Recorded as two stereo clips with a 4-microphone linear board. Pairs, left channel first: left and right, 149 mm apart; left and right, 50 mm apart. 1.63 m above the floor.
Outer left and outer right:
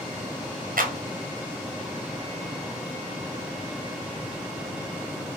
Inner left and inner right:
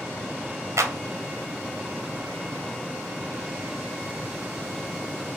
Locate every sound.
0.8 s a clap: 70° right (ahead or behind), 0.8 m